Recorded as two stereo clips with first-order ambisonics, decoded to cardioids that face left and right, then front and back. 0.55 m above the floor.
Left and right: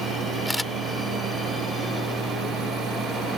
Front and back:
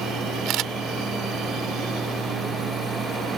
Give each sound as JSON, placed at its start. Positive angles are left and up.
{"t": 0.5, "sound": "a camera shutter", "azimuth_deg": 180}